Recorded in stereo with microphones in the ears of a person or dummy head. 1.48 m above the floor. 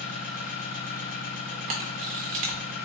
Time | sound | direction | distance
0.0 | an engine running | 45° left (ahead or behind) | 1.1 m
1.7 | a camera shutter | 45° right (ahead or behind) | 0.7 m